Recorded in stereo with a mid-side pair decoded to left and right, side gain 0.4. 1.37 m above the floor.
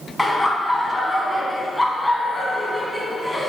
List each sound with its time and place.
0.2 s laughter: 20° left, 1.1 m